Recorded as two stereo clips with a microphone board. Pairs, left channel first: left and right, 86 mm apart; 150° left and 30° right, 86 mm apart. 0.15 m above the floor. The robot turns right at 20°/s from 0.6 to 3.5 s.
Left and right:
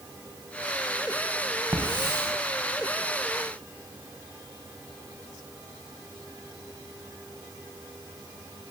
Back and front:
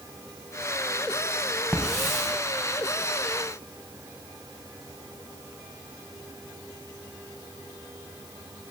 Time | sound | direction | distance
1.7 | a hiss | 130° right | 3 m